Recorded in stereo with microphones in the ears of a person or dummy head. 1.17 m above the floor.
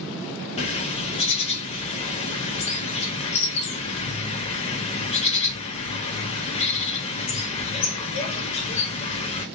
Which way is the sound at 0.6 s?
35° left (ahead or behind).